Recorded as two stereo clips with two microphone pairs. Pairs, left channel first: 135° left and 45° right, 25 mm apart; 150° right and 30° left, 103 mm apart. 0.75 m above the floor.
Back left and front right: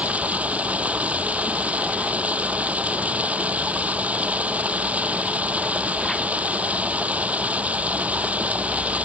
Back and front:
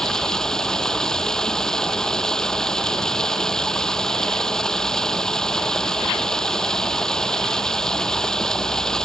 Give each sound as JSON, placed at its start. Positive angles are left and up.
{"t": 0.0, "sound": "running water", "azimuth_deg": -65}